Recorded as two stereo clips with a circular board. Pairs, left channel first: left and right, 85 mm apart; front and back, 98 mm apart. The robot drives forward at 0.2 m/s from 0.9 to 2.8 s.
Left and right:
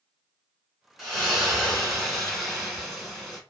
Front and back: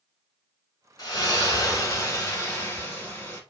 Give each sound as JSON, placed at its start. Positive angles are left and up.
{"t": 1.0, "sound": "a splash", "azimuth_deg": 0, "distance_m": 1.1}